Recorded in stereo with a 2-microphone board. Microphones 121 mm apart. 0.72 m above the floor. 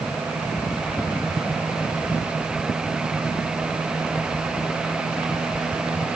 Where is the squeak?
I don't hear a squeak.